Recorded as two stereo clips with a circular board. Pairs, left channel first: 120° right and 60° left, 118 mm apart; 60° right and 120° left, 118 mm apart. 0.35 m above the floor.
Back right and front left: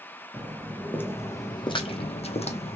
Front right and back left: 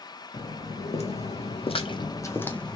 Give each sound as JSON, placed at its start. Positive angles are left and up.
{"t": 0.3, "sound": "footsteps", "azimuth_deg": -35, "distance_m": 1.2}